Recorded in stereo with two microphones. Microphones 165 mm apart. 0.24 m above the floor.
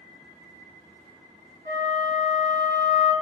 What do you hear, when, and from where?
1.6 s a flute: 70° right (ahead or behind), 1.3 m